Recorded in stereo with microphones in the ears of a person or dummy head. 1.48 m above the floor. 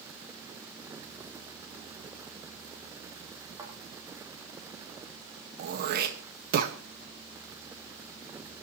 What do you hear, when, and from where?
3.6 s a thud: 15° right (ahead or behind), 6 m
5.6 s throat clearing: 55° right (ahead or behind), 1.8 m